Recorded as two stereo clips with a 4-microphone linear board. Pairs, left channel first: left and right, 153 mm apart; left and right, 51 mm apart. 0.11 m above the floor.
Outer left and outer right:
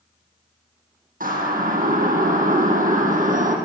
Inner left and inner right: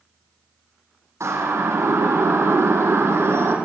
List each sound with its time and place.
1.2 s a siren: 70° right (ahead or behind), 7 m; by 3.6 s 60° right (ahead or behind), 6 m